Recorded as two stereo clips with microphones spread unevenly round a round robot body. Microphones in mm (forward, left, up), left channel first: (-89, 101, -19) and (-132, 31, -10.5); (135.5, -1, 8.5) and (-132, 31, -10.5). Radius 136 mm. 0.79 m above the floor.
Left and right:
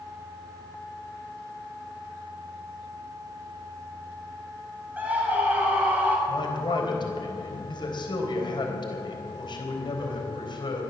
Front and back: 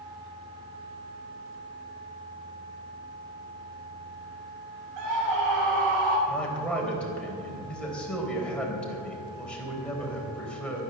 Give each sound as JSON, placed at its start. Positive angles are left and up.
{"t": 5.0, "sound": "a scream", "azimuth_deg": 170, "distance_m": 6.0}
{"t": 6.3, "sound": "a man speaking", "azimuth_deg": 80, "distance_m": 4.0}